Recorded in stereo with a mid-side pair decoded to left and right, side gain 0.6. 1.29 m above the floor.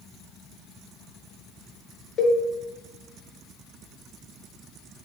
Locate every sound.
2.2 s a cowbell: 35° left, 1.1 m